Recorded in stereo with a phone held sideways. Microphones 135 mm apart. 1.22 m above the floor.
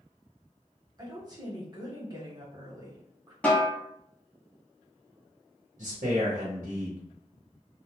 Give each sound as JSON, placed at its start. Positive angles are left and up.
{"t": 1.0, "sound": "a woman speaking", "side_deg": -30, "distance_m": 1.0}
{"t": 3.4, "sound": "a snare drum", "side_deg": 10, "distance_m": 0.8}
{"t": 5.8, "sound": "a man speaking", "side_deg": -70, "distance_m": 0.9}